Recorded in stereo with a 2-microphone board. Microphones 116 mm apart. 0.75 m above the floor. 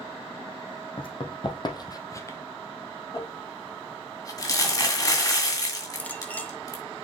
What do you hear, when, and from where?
1.0 s running footsteps: 50° left (ahead or behind), 1.8 m; by 2.4 s 20° left (ahead or behind), 1.0 m
3.1 s crumpling: 30° left (ahead or behind), 2 m
6.0 s a clink: 15° left (ahead or behind), 0.9 m